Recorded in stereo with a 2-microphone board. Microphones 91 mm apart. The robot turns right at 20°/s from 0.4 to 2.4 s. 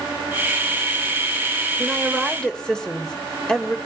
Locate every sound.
1.8 s a woman speaking: 5° right (ahead or behind), 2.5 m; by 3.8 s 5° left (ahead or behind), 2.5 m